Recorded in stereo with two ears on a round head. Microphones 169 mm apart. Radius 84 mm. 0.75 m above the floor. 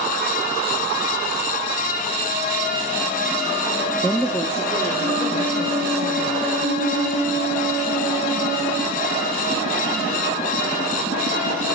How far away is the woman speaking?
About 0.6 m.